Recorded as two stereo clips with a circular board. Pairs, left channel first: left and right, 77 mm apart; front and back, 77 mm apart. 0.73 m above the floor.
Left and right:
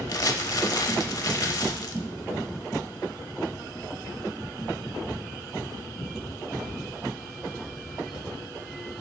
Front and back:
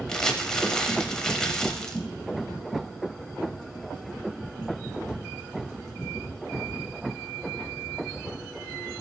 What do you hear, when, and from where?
0.1 s crumpling: 80° left, 0.7 m